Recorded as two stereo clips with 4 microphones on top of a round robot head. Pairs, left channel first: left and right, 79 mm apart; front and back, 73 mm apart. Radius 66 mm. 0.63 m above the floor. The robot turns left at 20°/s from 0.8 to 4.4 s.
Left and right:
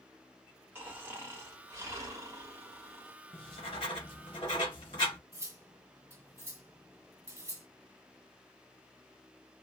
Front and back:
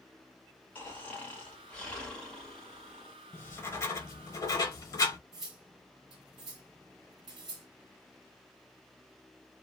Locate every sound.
0.8 s snoring: 50° right, 1.3 m; by 3.1 s 95° right, 1.3 m
3.3 s writing: 55° left, 0.9 m; by 5.2 s 35° left, 0.9 m
5.3 s cutlery clinking: 145° right, 1.2 m